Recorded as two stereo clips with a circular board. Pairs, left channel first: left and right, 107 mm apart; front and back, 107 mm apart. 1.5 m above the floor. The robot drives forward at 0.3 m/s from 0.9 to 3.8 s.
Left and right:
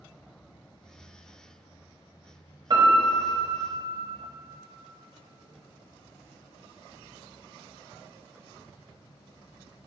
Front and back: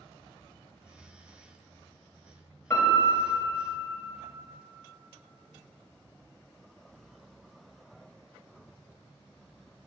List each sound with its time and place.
2.7 s a piano: 65° right, 1.2 m; by 3.9 s 90° right, 1.2 m